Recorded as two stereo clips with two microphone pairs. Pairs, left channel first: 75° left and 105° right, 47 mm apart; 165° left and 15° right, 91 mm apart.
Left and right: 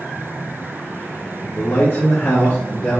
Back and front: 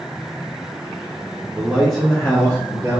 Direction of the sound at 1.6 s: 55° left.